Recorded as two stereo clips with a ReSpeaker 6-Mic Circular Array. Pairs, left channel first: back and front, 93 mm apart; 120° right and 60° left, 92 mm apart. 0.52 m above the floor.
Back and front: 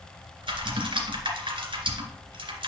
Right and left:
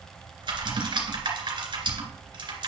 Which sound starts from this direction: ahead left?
Typing on a keyboard, at 0.4 s.